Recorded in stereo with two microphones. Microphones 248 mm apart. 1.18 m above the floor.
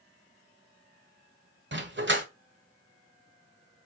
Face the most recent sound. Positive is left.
turn(degrees=-50)  # may be behind; listen again after turning